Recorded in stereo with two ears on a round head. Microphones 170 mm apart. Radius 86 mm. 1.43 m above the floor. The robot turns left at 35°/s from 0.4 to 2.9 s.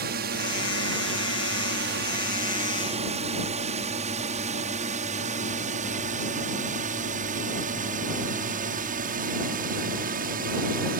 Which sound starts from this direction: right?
A drone, at 0.0 s.